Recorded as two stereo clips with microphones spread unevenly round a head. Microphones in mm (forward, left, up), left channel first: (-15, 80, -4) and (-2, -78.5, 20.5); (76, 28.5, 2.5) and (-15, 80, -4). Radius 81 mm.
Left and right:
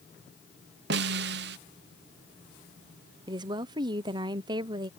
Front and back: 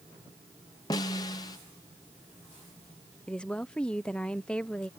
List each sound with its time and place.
0.9 s a snare drum: 95° right
3.3 s a woman speaking: 100° right